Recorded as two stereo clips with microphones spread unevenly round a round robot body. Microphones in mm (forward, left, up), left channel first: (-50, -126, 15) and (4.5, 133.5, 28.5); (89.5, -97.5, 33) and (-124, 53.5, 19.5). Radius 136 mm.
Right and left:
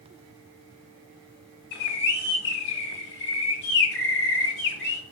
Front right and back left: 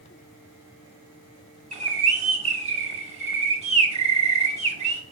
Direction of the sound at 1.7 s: 150° right.